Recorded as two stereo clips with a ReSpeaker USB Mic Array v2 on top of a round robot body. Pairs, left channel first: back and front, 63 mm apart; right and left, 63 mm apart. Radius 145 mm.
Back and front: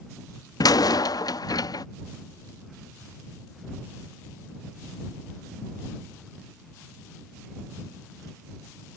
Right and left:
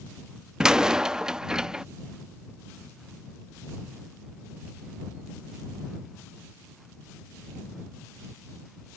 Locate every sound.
0.6 s a door slam: 170° left